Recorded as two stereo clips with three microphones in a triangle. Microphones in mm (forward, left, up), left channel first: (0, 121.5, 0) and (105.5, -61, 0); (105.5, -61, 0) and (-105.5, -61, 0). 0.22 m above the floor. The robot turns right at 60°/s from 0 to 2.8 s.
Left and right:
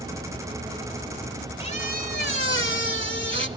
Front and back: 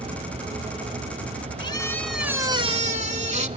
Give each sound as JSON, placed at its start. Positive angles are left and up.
{"t": 1.6, "sound": "a squeak", "azimuth_deg": 60, "distance_m": 1.0}